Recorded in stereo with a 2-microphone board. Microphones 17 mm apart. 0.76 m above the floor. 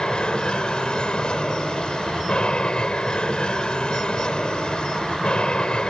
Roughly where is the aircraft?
Left.